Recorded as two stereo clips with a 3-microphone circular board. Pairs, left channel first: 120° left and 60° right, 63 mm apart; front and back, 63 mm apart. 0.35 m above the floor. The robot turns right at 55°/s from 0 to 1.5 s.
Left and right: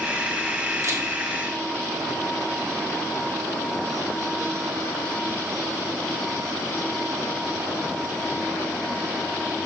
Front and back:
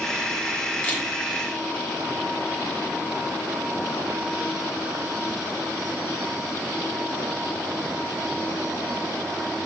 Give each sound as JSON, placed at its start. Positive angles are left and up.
{"t": 0.8, "sound": "a camera shutter", "azimuth_deg": -65, "distance_m": 1.0}